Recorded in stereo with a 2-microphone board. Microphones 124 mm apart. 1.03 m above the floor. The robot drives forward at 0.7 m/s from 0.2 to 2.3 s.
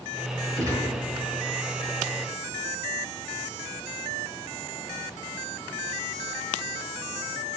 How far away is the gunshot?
About 5.5 m.